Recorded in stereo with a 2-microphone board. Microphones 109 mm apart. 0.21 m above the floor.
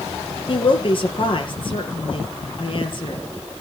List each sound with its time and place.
0.5 s a woman speaking: 45° left (ahead or behind), 4.5 m